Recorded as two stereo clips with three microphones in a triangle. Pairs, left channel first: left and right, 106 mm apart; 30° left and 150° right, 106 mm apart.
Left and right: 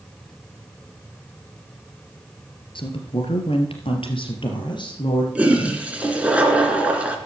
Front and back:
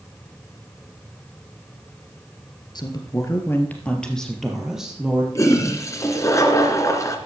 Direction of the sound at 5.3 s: 15° right.